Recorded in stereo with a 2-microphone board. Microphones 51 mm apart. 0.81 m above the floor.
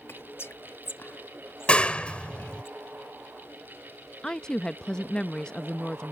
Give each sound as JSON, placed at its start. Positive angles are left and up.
{"t": 0.1, "sound": "whispering", "side_deg": 50}
{"t": 1.7, "sound": "a clap", "side_deg": 20}
{"t": 4.2, "sound": "a woman speaking", "side_deg": 15}